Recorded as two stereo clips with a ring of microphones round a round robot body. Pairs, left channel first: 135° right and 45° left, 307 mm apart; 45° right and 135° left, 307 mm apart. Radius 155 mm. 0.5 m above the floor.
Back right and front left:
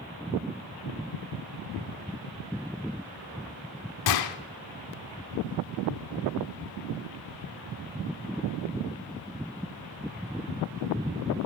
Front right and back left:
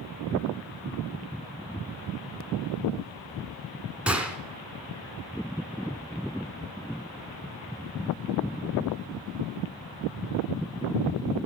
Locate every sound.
4.1 s a gunshot: 140° right, 0.7 m